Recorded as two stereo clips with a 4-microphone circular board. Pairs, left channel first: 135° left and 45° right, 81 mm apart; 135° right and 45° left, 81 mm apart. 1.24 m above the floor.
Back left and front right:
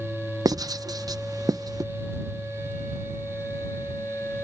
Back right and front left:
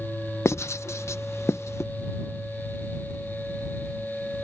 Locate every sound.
0.5 s writing: 80° right